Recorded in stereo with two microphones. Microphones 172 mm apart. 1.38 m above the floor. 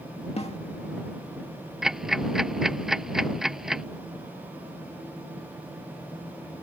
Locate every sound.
0.4 s a snare drum: 35° left (ahead or behind)
1.8 s ticking: 5° right (ahead or behind)